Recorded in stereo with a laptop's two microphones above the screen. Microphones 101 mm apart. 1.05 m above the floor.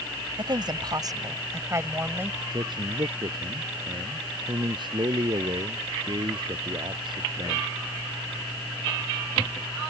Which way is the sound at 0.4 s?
50° right (ahead or behind).